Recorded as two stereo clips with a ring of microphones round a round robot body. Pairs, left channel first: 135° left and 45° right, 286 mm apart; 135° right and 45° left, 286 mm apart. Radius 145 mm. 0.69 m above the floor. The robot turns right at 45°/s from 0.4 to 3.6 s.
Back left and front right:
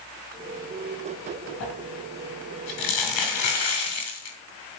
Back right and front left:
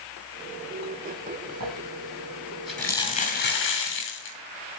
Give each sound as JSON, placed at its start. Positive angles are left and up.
{"t": 1.6, "sound": "crumpling", "azimuth_deg": 85, "distance_m": 6.5}